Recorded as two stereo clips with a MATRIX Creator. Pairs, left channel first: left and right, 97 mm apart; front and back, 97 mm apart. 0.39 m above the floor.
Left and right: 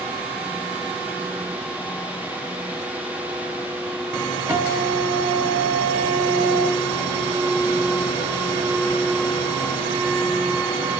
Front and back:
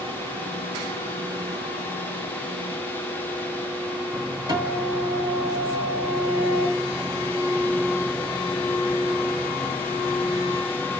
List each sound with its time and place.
4.5 s a guitar: 140° right, 2.0 m